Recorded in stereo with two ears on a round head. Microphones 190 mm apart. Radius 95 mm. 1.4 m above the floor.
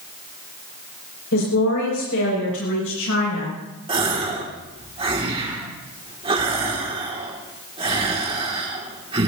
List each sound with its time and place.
1.3 s a woman speaking: 70° left (ahead or behind), 6 m; by 3.6 s 60° left (ahead or behind), 7.5 m
3.9 s a gasp: 25° right (ahead or behind), 2.5 m